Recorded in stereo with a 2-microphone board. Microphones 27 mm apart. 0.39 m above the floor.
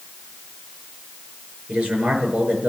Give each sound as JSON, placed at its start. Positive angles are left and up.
{"t": 1.7, "sound": "a man speaking", "side_deg": -65, "distance_m": 6.0}